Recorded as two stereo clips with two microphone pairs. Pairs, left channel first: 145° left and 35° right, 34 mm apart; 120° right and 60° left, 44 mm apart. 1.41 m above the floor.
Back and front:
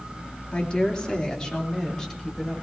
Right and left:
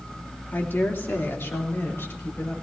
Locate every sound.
0.5 s a woman speaking: 155° right, 3 m; by 2.5 s 140° right, 4.5 m